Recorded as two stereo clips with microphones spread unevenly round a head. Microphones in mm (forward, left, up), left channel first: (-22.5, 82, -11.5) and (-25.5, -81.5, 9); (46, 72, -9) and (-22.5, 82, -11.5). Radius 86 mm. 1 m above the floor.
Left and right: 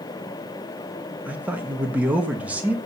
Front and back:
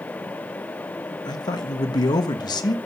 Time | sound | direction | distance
1.2 | a man speaking | 5° right | 1.3 m